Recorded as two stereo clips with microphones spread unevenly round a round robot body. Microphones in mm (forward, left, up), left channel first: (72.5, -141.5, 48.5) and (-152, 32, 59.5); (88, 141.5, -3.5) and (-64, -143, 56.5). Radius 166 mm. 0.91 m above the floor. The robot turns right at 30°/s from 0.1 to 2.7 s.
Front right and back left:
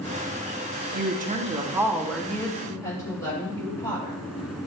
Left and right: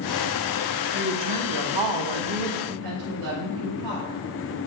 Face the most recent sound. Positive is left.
turn(degrees=-115)